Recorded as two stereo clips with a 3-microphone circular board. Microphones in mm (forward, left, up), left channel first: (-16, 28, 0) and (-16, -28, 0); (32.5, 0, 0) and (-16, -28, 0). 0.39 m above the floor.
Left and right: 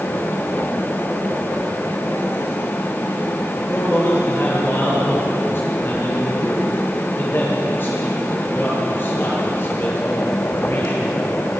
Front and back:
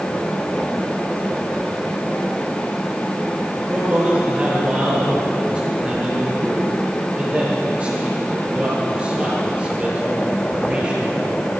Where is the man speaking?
140° left, 8 m.